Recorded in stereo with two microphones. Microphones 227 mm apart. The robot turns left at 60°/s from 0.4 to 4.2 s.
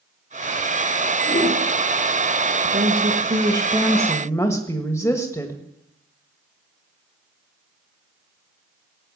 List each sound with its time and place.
1.2 s a whoosh: 60° left (ahead or behind), 6.5 m; by 1.6 s 40° left (ahead or behind), 6.5 m
2.6 s a woman speaking: 105° right, 1.6 m; by 5.6 s 165° left, 1.6 m